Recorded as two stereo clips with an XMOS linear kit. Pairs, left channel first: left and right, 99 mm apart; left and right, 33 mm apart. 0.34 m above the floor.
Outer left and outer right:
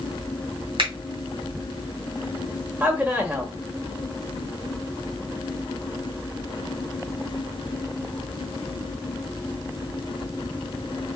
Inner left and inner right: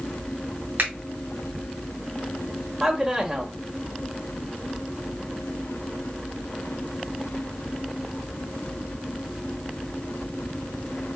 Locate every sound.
0.8 s a finger snap: 60° right (ahead or behind), 2 m
2.8 s a man speaking: 10° right (ahead or behind), 1.0 m